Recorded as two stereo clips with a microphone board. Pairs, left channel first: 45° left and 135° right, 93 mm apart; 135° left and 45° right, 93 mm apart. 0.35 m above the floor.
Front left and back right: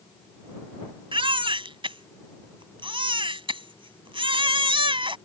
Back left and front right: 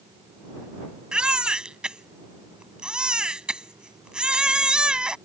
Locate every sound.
1.1 s a baby crying: 125° right